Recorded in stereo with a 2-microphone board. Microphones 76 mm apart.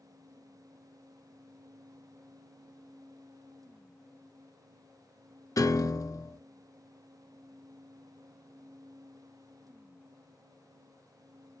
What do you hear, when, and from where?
5.6 s a piano: 55° left (ahead or behind), 0.6 m